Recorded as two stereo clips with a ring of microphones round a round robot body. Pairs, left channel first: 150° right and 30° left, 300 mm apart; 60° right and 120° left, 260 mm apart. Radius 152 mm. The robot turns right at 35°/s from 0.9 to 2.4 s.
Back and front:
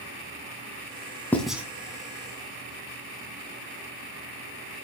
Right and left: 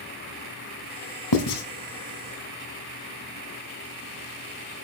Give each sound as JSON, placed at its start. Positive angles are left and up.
{"t": 1.3, "sound": "writing", "azimuth_deg": -65, "distance_m": 1.9}